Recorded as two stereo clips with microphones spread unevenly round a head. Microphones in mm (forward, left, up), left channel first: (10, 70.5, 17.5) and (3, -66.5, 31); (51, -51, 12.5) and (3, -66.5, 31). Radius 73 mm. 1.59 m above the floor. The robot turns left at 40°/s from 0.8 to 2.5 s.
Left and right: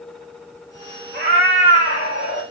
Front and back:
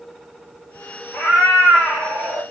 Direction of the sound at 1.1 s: 165° left.